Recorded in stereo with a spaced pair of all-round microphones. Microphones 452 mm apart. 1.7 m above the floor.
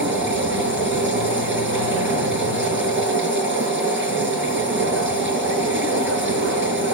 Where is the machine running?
25° right (ahead or behind), 6 m.